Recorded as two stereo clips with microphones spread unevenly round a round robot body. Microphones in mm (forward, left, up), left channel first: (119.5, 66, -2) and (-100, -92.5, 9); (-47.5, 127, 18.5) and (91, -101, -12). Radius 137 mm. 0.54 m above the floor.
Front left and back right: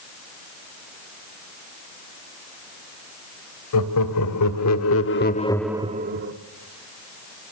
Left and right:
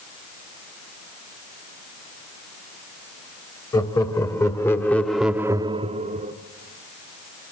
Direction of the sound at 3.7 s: 45° left.